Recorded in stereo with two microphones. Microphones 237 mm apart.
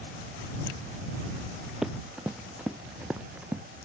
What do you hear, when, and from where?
1.8 s running footsteps: centre (ahead or behind); by 3.6 s 5° right (ahead or behind)